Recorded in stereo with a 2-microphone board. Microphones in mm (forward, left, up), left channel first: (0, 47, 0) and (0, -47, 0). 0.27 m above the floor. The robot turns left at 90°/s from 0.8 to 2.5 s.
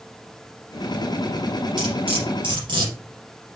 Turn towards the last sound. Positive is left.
turn(degrees=-55)  # may be behind; listen again after turning